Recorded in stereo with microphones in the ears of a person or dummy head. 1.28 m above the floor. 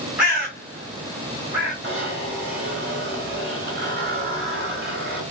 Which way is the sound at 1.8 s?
65° right (ahead or behind).